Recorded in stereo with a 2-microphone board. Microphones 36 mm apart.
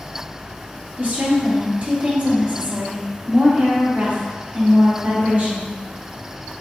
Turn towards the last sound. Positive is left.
turn(degrees=-45)  # may be behind; listen again after turning